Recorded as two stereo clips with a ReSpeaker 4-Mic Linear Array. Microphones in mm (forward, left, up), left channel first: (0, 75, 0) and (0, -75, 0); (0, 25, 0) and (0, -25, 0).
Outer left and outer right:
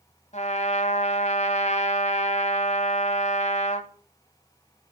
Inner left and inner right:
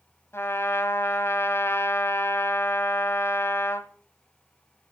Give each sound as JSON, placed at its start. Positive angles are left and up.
{"t": 0.3, "sound": "a trumpet", "side_deg": 50, "distance_m": 1.5}